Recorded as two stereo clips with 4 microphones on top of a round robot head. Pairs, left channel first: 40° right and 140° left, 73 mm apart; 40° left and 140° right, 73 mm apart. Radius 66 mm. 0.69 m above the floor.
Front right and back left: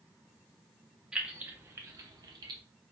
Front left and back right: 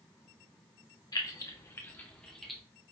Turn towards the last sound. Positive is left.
turn(degrees=130)